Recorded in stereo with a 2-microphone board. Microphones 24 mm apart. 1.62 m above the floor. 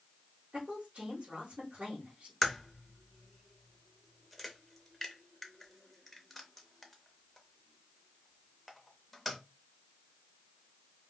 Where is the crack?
Centre (ahead or behind), 0.6 m.